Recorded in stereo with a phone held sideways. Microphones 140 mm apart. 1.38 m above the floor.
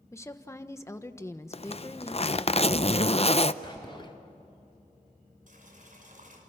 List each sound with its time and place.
0.1 s a woman speaking: 20° left (ahead or behind), 1.3 m
1.5 s a zipper: 45° left (ahead or behind), 0.6 m
3.6 s whispering: 35° left (ahead or behind), 0.5 m
5.5 s boiling: 70° right (ahead or behind), 6 m